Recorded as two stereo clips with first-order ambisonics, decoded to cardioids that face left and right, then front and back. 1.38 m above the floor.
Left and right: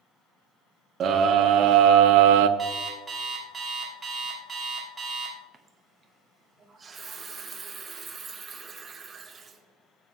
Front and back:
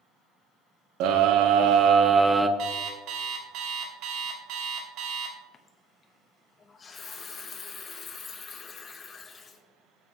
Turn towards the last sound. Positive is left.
turn(degrees=-40)